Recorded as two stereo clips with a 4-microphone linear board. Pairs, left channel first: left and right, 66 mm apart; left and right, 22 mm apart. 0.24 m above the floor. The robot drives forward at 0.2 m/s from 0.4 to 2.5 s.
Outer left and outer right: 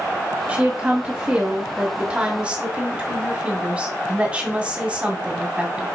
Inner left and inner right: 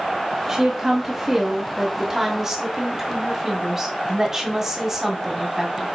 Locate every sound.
0.5 s a woman speaking: 20° right (ahead or behind), 1.9 m